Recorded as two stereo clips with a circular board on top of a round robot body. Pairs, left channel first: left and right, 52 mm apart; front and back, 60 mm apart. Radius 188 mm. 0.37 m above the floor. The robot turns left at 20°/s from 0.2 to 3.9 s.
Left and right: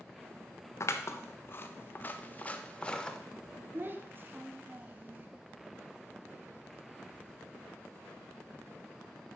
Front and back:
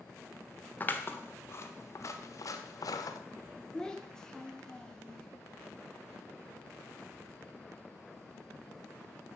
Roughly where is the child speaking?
Right.